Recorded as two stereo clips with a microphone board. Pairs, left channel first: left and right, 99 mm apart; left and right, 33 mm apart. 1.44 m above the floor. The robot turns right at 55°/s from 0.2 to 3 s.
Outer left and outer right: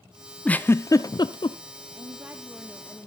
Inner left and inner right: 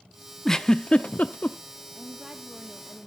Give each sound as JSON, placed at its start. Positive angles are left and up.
{"t": 0.5, "sound": "a giggle", "side_deg": 10, "distance_m": 0.6}
{"t": 1.9, "sound": "a woman speaking", "azimuth_deg": -40, "distance_m": 0.9}